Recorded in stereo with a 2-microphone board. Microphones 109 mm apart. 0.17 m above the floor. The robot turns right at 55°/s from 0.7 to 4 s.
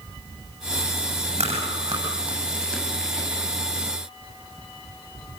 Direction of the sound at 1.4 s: 65° right (ahead or behind).